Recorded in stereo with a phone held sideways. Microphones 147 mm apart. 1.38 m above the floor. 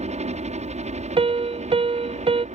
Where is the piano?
35° right (ahead or behind).